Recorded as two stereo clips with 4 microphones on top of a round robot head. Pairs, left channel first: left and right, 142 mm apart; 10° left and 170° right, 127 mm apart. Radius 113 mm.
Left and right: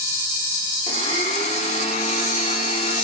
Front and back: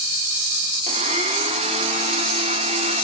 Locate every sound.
0.9 s a blender: 150° left, 1.1 m